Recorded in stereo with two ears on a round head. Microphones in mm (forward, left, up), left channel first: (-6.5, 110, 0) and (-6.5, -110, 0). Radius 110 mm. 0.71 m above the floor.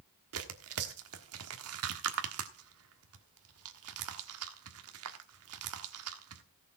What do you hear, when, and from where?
0.3 s tearing paper: 65° right (ahead or behind), 1.4 m